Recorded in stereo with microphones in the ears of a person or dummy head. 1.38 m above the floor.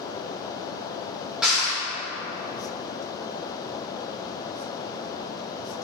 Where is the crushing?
10° right (ahead or behind), 2 m.